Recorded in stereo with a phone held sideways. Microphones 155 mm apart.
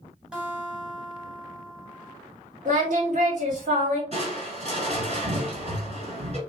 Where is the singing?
50° right (ahead or behind), 1.6 m.